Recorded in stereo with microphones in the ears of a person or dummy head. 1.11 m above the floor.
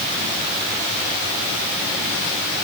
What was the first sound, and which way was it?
Only background noise.